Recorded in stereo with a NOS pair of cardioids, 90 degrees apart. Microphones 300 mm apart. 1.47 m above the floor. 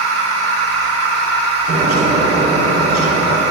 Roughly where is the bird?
Ahead right.